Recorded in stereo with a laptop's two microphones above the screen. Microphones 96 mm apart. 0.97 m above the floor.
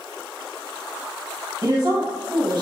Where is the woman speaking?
45° right (ahead or behind), 1.0 m.